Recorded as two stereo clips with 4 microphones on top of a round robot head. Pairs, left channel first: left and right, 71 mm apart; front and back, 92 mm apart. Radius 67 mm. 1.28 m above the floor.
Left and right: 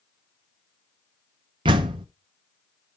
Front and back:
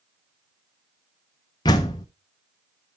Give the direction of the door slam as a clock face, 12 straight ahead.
2 o'clock.